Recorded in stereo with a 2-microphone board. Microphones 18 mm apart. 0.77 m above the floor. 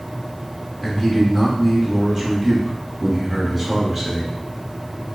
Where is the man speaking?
20° right (ahead or behind), 1.2 m.